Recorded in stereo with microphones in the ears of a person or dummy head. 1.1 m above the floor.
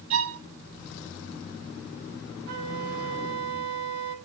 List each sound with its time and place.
0.1 s a violin: 35° right (ahead or behind), 6 m
2.5 s a flute: 55° right (ahead or behind), 5.5 m